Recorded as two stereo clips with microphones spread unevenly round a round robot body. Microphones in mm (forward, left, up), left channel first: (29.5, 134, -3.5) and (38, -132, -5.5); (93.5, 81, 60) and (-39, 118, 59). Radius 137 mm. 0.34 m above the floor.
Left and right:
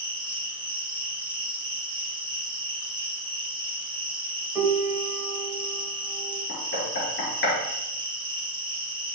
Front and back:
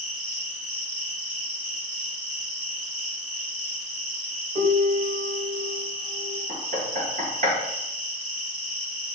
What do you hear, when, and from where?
0.0 s an insect: 160° right, 4 m
4.5 s a piano: 170° right, 1.8 m
6.5 s knocking: 145° left, 4.5 m